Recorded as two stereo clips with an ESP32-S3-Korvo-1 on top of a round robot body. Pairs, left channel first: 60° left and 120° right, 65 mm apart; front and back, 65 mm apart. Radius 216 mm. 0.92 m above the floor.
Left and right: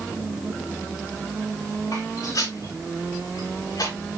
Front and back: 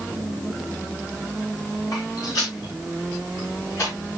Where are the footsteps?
25° left, 6.5 m; by 3.9 s 35° left, 6.5 m.